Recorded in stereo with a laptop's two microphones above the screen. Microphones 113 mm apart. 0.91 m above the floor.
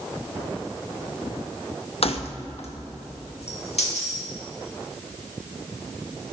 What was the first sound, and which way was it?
Keys jangling, 60° left (ahead or behind).